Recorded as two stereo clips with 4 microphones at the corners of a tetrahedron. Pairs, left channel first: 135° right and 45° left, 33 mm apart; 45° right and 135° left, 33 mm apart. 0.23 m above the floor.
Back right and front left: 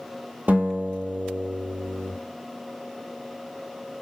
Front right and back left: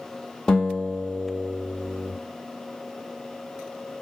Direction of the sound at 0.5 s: 25° left.